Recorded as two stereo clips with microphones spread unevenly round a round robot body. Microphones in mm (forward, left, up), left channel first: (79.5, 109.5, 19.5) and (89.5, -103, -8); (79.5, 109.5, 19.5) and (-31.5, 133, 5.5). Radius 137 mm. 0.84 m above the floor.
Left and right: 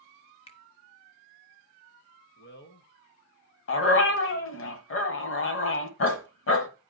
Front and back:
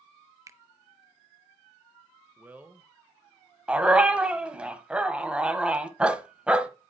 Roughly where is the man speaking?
Left.